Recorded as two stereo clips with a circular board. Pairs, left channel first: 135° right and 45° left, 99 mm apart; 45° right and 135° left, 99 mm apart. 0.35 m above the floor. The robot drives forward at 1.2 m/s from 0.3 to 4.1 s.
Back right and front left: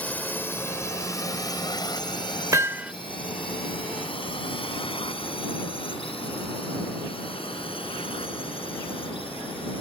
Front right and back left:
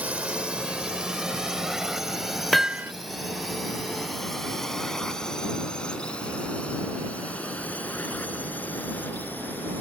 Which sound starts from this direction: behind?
A drone, at 0.0 s.